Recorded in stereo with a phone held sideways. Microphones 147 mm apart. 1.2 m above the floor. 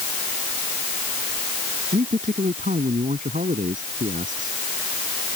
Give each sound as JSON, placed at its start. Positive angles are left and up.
{"t": 1.9, "sound": "a man speaking", "side_deg": -65}